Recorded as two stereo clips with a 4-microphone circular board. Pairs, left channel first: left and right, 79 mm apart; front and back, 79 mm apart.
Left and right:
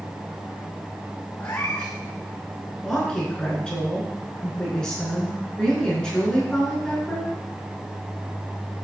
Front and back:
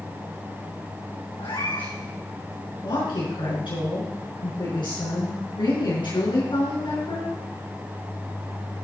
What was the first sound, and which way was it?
A cat meowing, 25° left.